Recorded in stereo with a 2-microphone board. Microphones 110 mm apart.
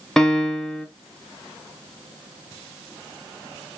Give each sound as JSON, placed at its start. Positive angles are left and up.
{"t": 0.2, "sound": "a piano", "side_deg": 5, "distance_m": 0.5}